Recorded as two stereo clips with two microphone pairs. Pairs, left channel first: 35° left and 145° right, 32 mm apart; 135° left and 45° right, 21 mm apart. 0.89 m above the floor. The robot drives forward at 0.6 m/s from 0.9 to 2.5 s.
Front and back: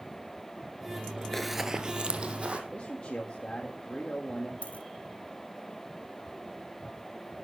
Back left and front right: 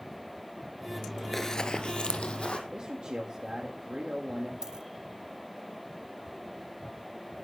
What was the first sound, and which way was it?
Running footsteps, 75° left.